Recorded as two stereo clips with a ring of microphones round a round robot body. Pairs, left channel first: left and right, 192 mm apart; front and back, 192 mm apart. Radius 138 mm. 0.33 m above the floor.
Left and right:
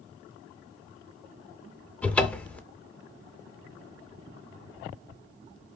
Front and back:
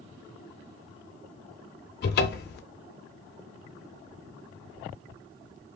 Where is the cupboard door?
5° left, 0.5 m.